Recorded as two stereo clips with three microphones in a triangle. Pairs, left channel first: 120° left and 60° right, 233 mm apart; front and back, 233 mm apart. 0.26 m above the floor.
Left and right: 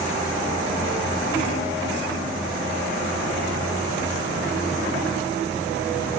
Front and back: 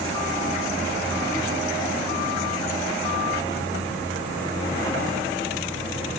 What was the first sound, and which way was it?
Only background noise.